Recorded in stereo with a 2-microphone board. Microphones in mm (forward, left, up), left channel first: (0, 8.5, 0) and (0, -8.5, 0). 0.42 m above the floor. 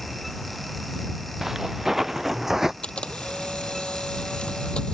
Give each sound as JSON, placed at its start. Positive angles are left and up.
{"t": 1.4, "sound": "footsteps", "side_deg": -20}
{"t": 2.8, "sound": "a camera shutter", "side_deg": 85}